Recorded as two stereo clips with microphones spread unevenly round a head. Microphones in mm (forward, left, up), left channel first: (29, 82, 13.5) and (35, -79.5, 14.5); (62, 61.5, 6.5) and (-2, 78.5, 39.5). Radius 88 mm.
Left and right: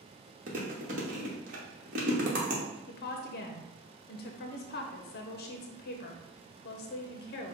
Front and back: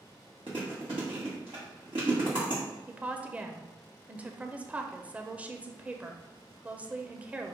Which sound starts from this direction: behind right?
Chewing, at 0.5 s.